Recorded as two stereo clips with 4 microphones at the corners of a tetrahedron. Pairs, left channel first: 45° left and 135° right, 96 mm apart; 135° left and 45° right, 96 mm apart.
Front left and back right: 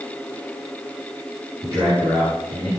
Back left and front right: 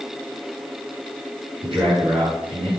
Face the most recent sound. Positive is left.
turn(degrees=-80)